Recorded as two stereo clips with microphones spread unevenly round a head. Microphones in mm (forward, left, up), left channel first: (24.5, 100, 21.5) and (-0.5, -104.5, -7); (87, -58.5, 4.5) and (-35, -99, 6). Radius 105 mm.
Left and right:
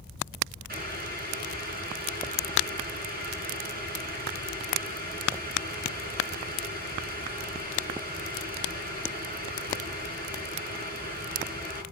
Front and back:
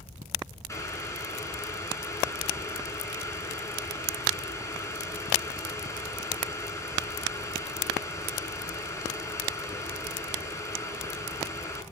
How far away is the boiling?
About 5 m.